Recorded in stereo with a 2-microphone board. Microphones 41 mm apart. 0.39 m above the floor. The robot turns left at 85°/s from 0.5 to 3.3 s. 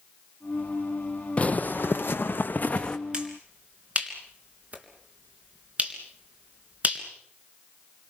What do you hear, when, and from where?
1.4 s footsteps: 35° left (ahead or behind), 0.7 m; by 3.0 s 20° left (ahead or behind), 1.6 m
3.1 s a finger snap: 25° right (ahead or behind), 3.5 m; by 7.0 s 35° right (ahead or behind), 3.5 m